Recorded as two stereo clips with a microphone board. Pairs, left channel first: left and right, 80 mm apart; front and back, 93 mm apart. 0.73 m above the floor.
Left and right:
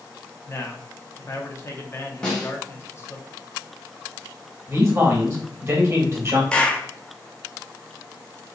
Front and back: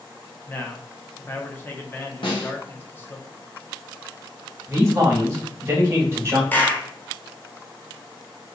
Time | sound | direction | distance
0.5 | a man speaking | 55° left | 0.6 m
2.2 | a snare drum | 10° left | 1.0 m
4.7 | a man speaking | 130° right | 1.1 m
6.5 | a clap | 35° left | 0.5 m